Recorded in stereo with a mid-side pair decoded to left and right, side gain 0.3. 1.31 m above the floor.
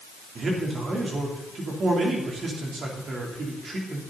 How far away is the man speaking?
About 3.5 m.